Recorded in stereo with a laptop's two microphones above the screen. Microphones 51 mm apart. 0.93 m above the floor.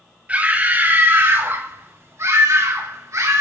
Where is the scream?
30° right (ahead or behind), 2.5 m; by 3.4 s 75° right (ahead or behind), 3 m.